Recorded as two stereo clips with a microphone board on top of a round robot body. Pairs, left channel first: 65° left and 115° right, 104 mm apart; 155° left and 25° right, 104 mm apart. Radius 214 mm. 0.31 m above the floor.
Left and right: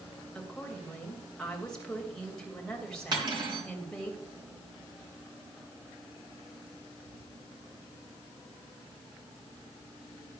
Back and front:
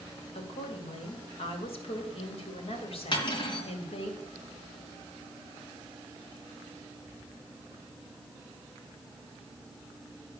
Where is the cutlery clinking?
160° right, 3.5 m.